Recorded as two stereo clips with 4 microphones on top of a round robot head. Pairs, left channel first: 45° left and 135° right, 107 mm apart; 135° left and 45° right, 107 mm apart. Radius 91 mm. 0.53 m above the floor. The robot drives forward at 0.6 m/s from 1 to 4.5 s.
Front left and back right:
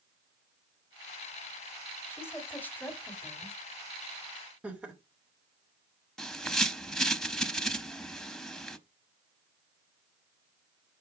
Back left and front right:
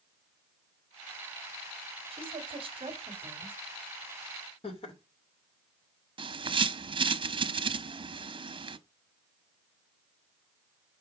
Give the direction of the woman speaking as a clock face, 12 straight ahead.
1 o'clock.